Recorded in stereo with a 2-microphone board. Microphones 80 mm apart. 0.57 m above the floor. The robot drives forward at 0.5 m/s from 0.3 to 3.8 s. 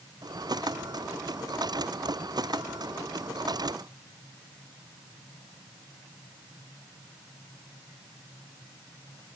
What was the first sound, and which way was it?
Only background noise.